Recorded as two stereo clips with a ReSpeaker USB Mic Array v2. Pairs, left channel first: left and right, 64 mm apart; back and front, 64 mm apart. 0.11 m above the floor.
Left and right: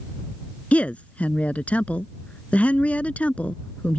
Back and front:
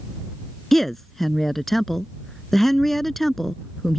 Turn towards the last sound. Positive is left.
turn(degrees=100)